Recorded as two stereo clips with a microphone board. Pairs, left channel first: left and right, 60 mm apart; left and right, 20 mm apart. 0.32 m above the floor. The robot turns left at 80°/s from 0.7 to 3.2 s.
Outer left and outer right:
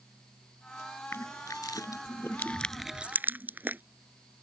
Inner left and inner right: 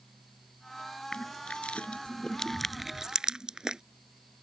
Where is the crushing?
45° left (ahead or behind); by 3.8 s 35° right (ahead or behind).